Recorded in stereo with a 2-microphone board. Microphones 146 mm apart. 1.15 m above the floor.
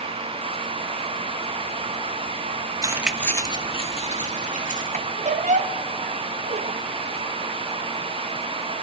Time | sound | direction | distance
2.8 | keys jangling | 25° right (ahead or behind) | 0.9 m
4.9 | a squeak | 55° right (ahead or behind) | 0.5 m